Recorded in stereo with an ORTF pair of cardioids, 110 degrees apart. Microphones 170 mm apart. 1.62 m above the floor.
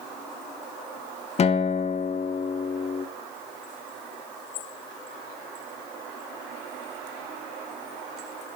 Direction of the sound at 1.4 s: 40° left.